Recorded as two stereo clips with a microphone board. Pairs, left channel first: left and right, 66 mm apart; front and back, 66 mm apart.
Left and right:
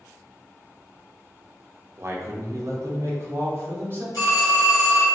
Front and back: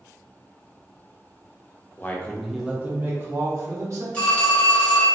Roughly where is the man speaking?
Ahead right.